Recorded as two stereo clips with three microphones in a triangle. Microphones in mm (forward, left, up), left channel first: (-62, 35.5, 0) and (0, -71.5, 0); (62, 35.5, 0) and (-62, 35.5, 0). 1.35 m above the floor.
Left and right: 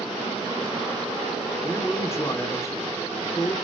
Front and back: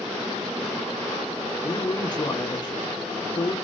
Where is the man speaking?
55° left, 3 m.